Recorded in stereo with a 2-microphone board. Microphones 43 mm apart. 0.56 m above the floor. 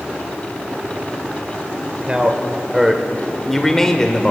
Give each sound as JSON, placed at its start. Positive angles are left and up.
{"t": 2.1, "sound": "a man speaking", "side_deg": -20, "distance_m": 1.7}